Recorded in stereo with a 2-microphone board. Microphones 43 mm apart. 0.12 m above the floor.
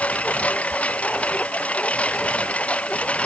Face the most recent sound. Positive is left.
turn(degrees=30)  # may be behind; listen again after turning